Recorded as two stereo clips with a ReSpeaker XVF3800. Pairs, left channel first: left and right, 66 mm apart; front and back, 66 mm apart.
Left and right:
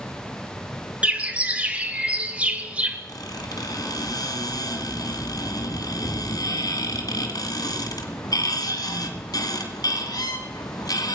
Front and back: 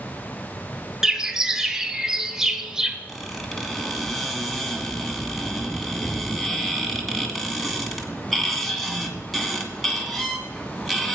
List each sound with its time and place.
1.0 s a bird: 110° right, 1.0 m
3.1 s a squeak: 90° left, 2.0 m